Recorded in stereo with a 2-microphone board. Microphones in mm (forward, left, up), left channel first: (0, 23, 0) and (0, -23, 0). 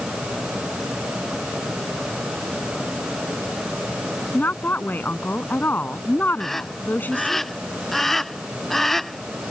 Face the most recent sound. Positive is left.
turn(degrees=5)  # may be behind; listen again after turning